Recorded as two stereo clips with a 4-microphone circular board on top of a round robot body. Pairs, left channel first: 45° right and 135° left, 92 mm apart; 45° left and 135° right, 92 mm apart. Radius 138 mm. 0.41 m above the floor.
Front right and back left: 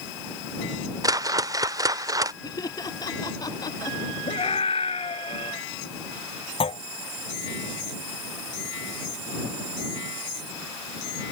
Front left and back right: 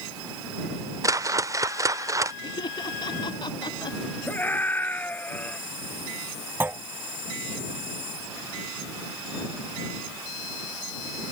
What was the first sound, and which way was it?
A whoosh, 175° left.